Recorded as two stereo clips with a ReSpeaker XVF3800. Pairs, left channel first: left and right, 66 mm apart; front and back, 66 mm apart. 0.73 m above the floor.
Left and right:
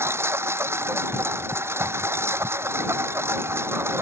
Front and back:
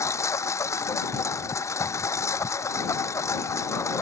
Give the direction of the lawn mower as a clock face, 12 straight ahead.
1 o'clock.